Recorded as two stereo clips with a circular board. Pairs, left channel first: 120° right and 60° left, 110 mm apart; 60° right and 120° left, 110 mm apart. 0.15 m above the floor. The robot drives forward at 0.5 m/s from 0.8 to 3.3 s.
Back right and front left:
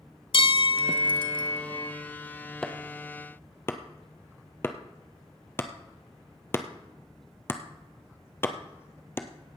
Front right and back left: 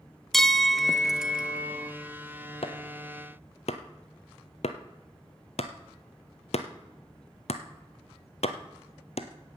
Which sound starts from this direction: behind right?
A bell, at 0.3 s.